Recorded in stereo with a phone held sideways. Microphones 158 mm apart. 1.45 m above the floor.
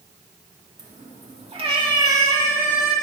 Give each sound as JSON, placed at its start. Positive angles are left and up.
{"t": 0.8, "sound": "a cat meowing", "side_deg": -55, "distance_m": 1.5}